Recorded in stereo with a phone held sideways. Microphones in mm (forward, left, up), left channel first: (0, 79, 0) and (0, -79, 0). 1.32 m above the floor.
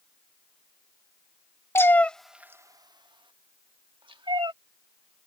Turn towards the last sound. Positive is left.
turn(degrees=-35)  # may be behind; listen again after turning